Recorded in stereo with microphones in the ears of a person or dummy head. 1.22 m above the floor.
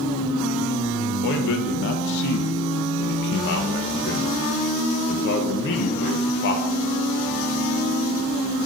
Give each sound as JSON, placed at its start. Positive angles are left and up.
{"t": 1.2, "sound": "a man speaking", "side_deg": 70, "distance_m": 0.7}